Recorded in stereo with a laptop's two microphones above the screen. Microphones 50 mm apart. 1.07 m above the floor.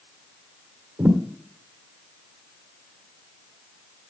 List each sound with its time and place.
1.0 s a thud: 60° right (ahead or behind), 1.7 m